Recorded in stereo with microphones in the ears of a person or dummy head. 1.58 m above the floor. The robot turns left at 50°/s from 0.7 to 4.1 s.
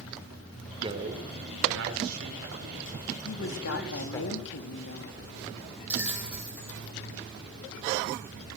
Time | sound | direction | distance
0.8 | a man speaking | 30° right | 4.5 m
3.2 | a woman speaking | 115° left | 2.5 m
5.9 | a bell | 5° right (ahead or behind) | 3 m